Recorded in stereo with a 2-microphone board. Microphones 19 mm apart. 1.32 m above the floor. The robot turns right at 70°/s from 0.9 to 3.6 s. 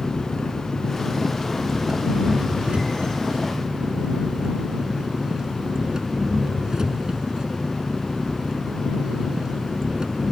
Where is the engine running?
135° left; by 10.3 s 40° right.